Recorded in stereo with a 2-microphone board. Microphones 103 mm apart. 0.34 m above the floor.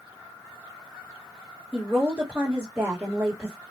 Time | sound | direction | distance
1.7 | a woman speaking | 20° right (ahead or behind) | 1.3 m